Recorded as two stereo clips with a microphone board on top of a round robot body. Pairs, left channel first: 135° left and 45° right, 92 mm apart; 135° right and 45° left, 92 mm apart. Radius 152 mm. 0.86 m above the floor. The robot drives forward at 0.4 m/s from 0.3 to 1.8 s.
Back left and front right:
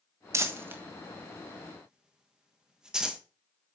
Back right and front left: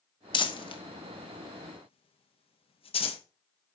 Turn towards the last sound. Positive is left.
turn(degrees=-130)